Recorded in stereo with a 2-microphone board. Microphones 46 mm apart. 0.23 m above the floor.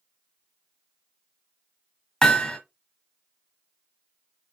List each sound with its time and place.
2.2 s hammering: 15° left (ahead or behind), 1.1 m